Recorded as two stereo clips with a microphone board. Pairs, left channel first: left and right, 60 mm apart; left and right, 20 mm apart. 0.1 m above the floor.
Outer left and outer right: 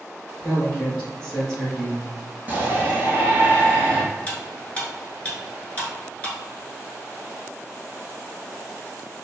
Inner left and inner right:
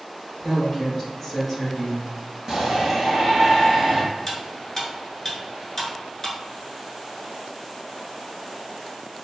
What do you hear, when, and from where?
0.4 s a woman speaking: 10° left (ahead or behind), 1.7 m
2.5 s a shout: 20° right (ahead or behind), 1.6 m
4.3 s cutlery clinking: 20° left (ahead or behind), 0.9 m